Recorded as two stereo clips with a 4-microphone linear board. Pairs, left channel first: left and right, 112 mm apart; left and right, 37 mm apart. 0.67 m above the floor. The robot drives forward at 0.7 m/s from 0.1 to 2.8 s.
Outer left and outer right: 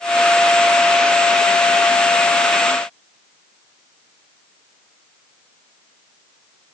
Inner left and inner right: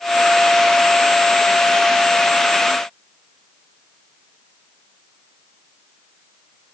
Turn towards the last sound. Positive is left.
No sound to turn to.